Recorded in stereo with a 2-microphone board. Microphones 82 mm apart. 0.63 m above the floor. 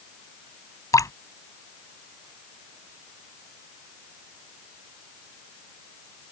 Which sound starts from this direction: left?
Dripping, at 0.9 s.